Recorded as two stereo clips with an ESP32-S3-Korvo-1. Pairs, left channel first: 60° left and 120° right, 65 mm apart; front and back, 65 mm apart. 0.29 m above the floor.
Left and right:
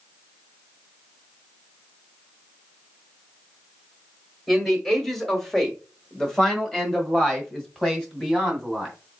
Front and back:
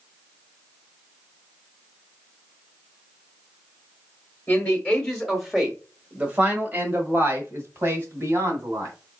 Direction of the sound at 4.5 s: 20° right.